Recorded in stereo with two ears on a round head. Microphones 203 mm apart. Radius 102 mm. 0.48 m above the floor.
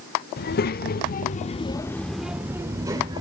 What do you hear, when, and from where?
0.4 s a child speaking: 45° left (ahead or behind), 1.0 m; by 3.2 s 20° right (ahead or behind), 1.2 m